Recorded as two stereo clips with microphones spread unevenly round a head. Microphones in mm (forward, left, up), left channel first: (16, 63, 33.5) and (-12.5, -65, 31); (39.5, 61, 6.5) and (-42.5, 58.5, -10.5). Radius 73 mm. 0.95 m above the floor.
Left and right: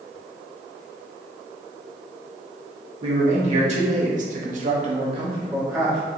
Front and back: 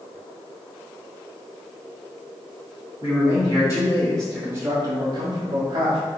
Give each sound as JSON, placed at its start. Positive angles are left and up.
{"t": 3.0, "sound": "a man speaking", "azimuth_deg": -60, "distance_m": 1.6}